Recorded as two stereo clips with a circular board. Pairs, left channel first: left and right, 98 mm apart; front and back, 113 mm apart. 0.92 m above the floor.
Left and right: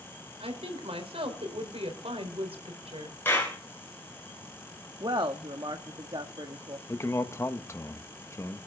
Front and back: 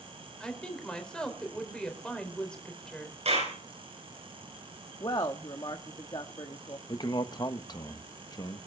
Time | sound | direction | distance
0.4 | a woman speaking | 85° right | 4 m
3.2 | a clap | 160° left | 9.5 m
5.0 | a woman speaking | 50° right | 1.3 m
6.9 | a man speaking | 40° left | 1.3 m